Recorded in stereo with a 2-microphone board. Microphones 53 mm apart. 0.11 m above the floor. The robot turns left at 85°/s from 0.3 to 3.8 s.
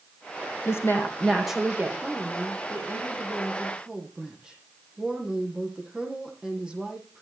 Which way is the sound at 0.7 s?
65° left.